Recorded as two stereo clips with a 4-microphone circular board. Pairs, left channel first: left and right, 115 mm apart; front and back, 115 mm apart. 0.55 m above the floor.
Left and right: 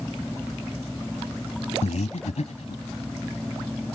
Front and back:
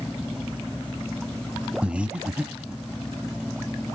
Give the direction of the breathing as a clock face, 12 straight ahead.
9 o'clock.